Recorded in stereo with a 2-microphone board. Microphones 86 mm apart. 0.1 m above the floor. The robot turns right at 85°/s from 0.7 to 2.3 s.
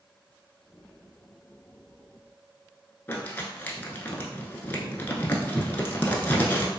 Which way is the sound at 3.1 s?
20° left (ahead or behind).